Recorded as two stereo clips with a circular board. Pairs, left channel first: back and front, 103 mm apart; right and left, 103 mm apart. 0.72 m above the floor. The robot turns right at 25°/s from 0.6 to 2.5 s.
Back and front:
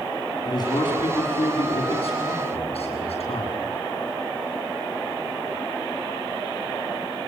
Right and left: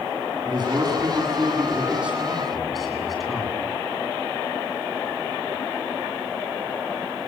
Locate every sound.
0.5 s a man speaking: 135° left, 8 m; by 3.6 s straight behind, 8 m